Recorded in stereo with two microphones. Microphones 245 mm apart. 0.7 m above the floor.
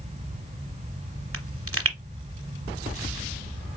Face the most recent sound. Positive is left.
turn(degrees=-65)  # may be behind; listen again after turning